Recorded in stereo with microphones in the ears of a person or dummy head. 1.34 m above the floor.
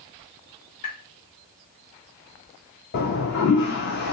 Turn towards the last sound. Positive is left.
turn(degrees=60)  # may be behind; listen again after turning